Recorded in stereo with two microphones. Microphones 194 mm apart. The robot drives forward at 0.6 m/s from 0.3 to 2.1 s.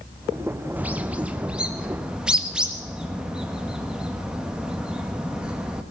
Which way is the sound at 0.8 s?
10° right (ahead or behind).